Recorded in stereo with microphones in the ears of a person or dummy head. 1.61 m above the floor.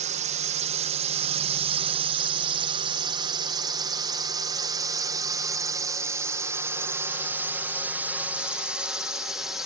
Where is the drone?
45° right (ahead or behind); by 9.7 s 5° right (ahead or behind).